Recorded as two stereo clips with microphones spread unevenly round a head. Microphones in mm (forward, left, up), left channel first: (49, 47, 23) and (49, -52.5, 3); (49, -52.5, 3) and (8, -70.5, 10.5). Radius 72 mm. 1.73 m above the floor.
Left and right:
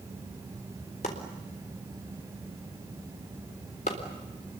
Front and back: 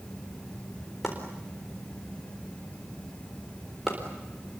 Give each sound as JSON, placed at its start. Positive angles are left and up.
{"t": 1.0, "sound": "chopping", "azimuth_deg": 115, "distance_m": 4.0}